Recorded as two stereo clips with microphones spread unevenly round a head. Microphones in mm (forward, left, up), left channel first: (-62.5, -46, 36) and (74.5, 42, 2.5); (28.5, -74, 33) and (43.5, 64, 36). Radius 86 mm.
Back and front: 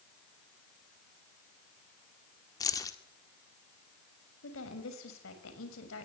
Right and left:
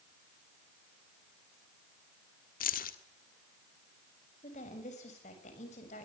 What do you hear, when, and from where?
2.6 s keys jangling: 75° right, 1.8 m
4.4 s a woman speaking: 145° right, 6.5 m